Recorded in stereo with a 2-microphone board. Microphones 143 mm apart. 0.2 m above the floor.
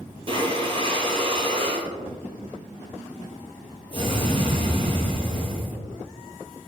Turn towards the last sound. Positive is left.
turn(degrees=-40)  # may be behind; listen again after turning